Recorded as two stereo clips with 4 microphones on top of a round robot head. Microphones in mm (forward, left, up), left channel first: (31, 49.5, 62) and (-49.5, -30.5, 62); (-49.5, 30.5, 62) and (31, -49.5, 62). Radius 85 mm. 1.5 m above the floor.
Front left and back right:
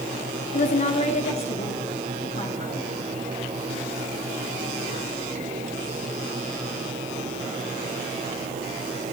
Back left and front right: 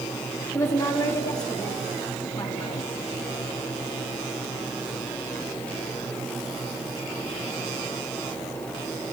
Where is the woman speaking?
65° left, 1.1 m; by 2.9 s 80° left, 3.5 m.